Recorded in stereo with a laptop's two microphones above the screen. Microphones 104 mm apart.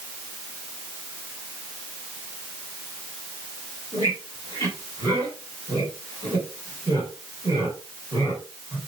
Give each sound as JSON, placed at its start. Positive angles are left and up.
{"t": 3.9, "sound": "a squeak", "side_deg": -35, "distance_m": 4.0}